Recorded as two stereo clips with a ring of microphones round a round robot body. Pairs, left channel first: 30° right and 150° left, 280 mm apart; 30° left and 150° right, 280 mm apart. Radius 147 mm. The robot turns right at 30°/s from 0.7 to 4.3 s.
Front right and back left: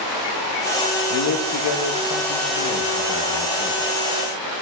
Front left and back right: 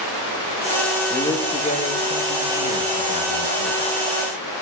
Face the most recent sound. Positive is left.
turn(degrees=45)